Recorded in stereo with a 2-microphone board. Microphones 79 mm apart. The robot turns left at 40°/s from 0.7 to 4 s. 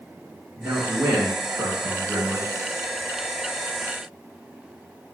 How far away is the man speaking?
About 1.3 m.